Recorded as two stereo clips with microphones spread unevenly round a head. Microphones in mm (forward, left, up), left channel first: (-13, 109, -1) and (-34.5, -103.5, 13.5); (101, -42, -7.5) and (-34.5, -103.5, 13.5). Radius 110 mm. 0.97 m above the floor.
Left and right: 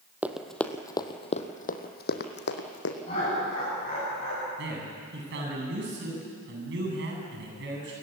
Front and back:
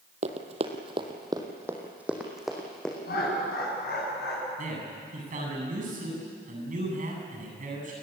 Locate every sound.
0.2 s running footsteps: 175° right, 1.6 m; by 3.0 s 115° left, 2.5 m
3.0 s laughter: 25° left, 9.5 m
4.6 s a man speaking: 130° right, 8.5 m